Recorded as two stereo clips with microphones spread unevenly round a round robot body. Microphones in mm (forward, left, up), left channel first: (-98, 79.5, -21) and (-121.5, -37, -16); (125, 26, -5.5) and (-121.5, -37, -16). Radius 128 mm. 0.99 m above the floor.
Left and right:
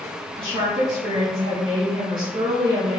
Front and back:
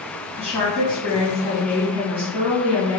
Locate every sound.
0.3 s a woman speaking: 65° right, 1.7 m